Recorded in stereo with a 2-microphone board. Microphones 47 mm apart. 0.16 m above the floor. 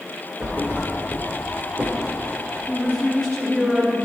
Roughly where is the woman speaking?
Centre.